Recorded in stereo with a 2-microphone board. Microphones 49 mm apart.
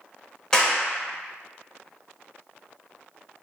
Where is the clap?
15° left (ahead or behind), 0.6 m.